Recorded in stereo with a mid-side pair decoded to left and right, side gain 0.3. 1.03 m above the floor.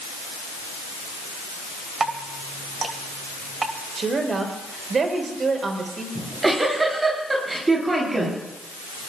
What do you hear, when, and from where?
2.0 s dripping: 50° right, 1.8 m
4.0 s a woman speaking: 60° right, 4.5 m
6.2 s a giggle: 35° right, 9 m